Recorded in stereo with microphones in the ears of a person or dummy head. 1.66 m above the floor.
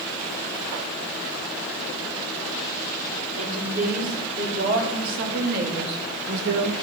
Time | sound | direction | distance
3.4 | a woman speaking | 45° right (ahead or behind) | 4.5 m